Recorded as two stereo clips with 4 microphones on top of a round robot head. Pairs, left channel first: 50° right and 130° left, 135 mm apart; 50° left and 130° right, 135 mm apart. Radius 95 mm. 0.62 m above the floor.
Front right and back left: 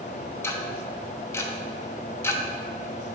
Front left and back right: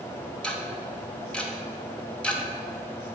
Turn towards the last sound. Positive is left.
turn(degrees=-20)